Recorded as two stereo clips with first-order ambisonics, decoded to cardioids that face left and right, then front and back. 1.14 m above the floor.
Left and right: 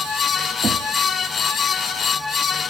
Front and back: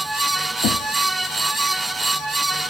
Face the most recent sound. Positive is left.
turn(degrees=-20)